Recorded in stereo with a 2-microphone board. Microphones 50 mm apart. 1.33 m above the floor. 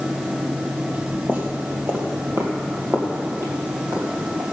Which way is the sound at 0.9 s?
35° right (ahead or behind).